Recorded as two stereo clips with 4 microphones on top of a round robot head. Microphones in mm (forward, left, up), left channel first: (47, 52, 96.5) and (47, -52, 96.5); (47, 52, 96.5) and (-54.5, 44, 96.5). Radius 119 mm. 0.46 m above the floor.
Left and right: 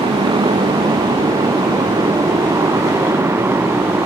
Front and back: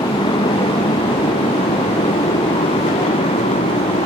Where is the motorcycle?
45° right; by 4.1 s 20° right.